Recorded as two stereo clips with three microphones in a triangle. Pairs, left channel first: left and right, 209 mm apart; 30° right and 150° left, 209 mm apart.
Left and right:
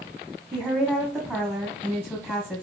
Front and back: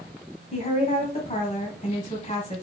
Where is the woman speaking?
15° right, 1.4 m.